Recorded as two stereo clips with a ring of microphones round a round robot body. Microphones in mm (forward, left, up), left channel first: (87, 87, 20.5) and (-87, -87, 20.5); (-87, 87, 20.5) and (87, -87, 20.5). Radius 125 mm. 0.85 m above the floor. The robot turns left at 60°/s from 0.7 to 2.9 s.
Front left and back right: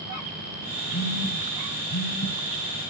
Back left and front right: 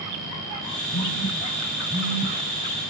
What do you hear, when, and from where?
0.9 s a phone buzzing: 90° left, 4 m; by 2.4 s straight ahead, 4 m